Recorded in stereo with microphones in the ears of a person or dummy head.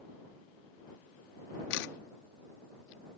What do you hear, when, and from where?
1.7 s a camera shutter: 60° left (ahead or behind)